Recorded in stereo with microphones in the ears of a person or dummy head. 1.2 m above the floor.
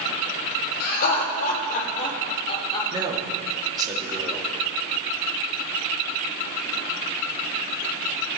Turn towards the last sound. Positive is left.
turn(degrees=-20)  # may be behind; listen again after turning